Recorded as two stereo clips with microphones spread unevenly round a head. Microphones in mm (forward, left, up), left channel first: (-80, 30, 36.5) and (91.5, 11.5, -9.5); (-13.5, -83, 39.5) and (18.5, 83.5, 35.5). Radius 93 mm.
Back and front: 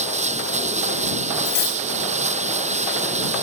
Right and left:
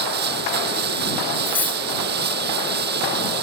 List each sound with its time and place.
0.0 s running water: 45° left
1.4 s cutlery clinking: straight behind